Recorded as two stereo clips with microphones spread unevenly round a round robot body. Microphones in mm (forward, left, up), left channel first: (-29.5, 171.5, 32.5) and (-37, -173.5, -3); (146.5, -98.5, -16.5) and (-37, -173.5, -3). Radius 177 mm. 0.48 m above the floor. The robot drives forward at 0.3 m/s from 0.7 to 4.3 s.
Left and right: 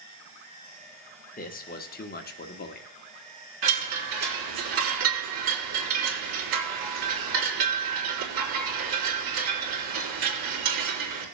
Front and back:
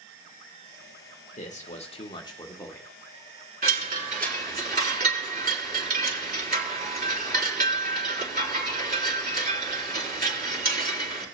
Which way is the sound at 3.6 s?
110° right.